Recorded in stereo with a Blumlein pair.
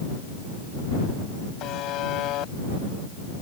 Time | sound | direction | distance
1.6 | a buzzer | 35° left | ?